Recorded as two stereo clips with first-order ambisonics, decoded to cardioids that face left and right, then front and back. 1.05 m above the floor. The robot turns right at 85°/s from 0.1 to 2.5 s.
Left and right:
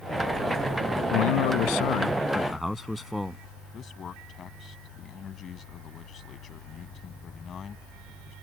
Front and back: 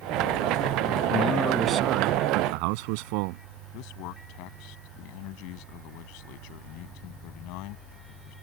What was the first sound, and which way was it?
A man speaking, 60° left.